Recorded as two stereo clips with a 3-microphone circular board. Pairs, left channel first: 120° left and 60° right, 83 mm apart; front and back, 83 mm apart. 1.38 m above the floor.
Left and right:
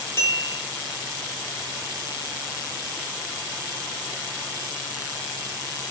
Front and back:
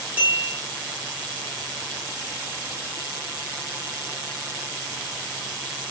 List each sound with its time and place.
0.2 s a bell: 125° left, 1.2 m